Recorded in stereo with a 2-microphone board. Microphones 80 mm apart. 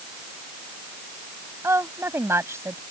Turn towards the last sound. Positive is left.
turn(degrees=-35)  # may be behind; listen again after turning